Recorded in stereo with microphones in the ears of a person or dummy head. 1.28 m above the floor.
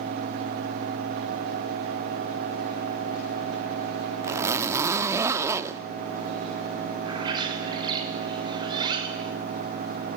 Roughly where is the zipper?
Centre.